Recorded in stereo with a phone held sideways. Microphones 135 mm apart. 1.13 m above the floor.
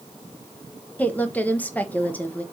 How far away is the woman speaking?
About 1.3 m.